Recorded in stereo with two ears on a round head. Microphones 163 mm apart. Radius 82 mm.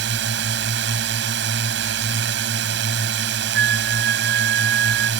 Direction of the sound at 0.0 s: 70° right (ahead or behind).